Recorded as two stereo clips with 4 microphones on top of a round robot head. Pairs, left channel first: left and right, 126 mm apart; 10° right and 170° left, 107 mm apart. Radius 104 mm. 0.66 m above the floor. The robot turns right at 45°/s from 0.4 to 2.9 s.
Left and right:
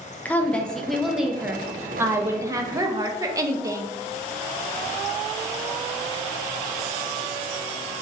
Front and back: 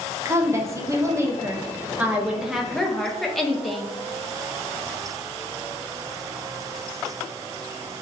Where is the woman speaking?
155° left, 0.6 m; by 4.0 s 95° right, 0.6 m.